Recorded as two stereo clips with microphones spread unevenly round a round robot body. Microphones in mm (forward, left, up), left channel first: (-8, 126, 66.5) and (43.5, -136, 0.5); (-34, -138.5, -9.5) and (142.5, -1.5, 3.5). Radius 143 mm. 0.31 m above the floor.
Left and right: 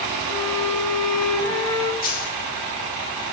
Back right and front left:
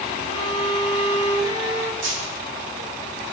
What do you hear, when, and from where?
0.3 s a violin: 25° left, 1.3 m
2.0 s a dropped coin: 45° left, 3.5 m